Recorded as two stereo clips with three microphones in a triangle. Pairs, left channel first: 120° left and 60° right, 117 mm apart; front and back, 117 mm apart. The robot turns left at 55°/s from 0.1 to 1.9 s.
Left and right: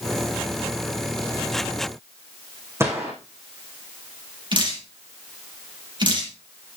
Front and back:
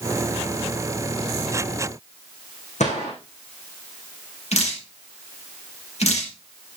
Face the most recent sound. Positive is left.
turn(degrees=-15)